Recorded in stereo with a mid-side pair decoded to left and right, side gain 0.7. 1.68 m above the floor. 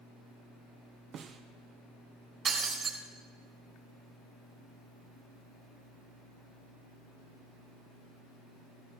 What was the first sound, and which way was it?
A snare drum, 40° right.